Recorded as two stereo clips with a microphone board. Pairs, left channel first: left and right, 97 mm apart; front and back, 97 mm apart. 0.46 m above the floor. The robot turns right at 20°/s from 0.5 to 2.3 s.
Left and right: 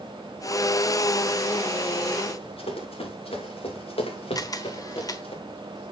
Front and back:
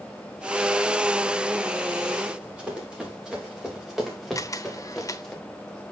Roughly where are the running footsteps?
Left.